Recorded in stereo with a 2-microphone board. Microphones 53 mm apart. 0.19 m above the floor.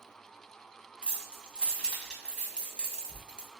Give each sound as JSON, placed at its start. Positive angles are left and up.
{"t": 1.0, "sound": "keys jangling", "side_deg": 15, "distance_m": 0.7}